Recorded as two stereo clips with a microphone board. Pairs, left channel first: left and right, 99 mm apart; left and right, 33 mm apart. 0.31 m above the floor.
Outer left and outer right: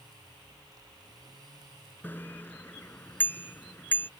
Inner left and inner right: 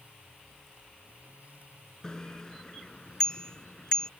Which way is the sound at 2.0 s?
20° left (ahead or behind).